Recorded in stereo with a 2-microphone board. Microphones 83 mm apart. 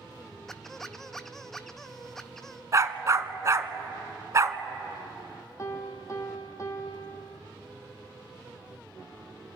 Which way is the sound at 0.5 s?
5° left (ahead or behind).